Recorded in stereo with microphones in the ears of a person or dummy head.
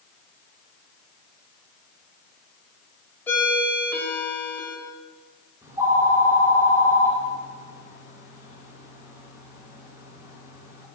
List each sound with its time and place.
3.3 s a ringtone: 15° left (ahead or behind), 2.5 m
5.6 s a phone ringing: 15° right (ahead or behind), 2.5 m